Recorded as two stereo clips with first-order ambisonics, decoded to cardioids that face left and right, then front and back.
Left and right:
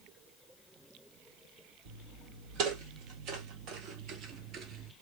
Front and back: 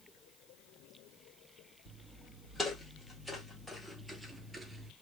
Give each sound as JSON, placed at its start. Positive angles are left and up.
{"t": 1.9, "sound": "footsteps", "azimuth_deg": -70, "distance_m": 2.5}